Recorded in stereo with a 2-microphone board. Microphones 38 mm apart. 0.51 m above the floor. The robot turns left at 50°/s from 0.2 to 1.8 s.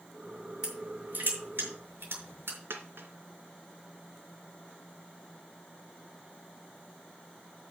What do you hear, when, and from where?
0.6 s crushing: 30° right (ahead or behind), 6.5 m; by 2.6 s 85° right, 6.5 m
2.7 s a dropped coin: 80° right, 2 m